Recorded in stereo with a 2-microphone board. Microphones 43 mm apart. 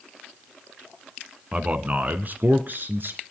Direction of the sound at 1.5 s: 30° right (ahead or behind).